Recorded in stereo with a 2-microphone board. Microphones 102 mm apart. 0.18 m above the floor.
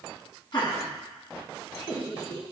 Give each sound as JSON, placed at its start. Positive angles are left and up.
{"t": 0.5, "sound": "laughter", "side_deg": 50, "distance_m": 1.8}